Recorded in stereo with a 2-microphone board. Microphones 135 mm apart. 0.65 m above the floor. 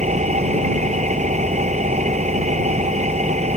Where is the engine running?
60° right (ahead or behind).